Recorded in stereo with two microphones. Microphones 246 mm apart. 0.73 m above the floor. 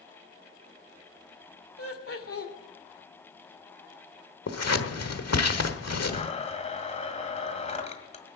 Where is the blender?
25° left (ahead or behind), 1.7 m.